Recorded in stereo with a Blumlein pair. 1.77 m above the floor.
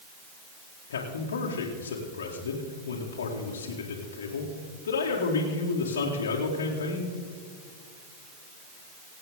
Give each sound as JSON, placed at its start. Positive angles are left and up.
{"t": 0.9, "sound": "a man speaking", "azimuth_deg": 65, "distance_m": 2.0}